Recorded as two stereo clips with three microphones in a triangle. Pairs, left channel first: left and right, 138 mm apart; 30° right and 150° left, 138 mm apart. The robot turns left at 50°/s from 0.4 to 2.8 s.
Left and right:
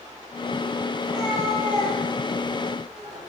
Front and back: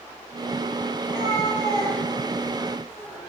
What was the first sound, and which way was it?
A cat meowing, 10° right.